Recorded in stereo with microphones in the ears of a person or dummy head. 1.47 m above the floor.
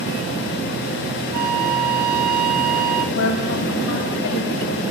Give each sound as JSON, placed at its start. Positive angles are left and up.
{"t": 1.3, "sound": "a flute", "side_deg": -50, "distance_m": 1.6}
{"t": 3.1, "sound": "a woman speaking", "side_deg": 70, "distance_m": 7.0}